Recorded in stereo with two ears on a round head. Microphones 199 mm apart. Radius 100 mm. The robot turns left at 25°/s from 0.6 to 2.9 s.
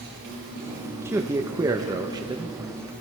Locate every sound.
0.0 s an insect: 130° right, 6 m; by 3.0 s 175° left, 6 m
1.1 s a man speaking: 10° right (ahead or behind), 0.7 m; by 2.6 s 20° right (ahead or behind), 0.7 m